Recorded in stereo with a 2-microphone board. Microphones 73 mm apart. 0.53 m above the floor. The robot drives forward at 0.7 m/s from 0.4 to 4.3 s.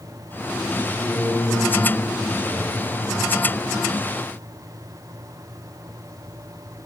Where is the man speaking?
75° left (ahead or behind), 5.5 m; by 3.3 s 65° left (ahead or behind), 6 m.